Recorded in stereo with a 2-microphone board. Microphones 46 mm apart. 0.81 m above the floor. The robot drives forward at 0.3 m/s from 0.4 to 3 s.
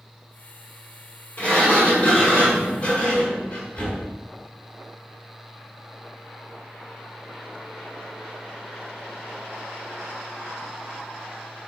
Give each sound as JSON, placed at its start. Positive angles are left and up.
{"t": 1.4, "sound": "a sliding door", "side_deg": 40, "distance_m": 1.6}